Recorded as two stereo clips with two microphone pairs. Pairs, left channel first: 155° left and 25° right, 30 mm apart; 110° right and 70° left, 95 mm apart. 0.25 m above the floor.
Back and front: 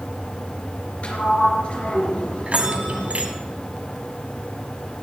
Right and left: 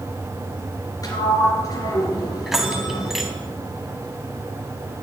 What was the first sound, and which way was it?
A sliding door, 160° right.